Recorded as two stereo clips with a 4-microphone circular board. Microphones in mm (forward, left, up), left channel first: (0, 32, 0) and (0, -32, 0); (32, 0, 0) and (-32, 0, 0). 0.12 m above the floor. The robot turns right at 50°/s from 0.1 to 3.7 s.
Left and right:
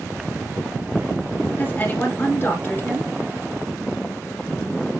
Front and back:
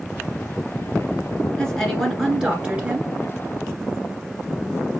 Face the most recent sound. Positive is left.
turn(degrees=170)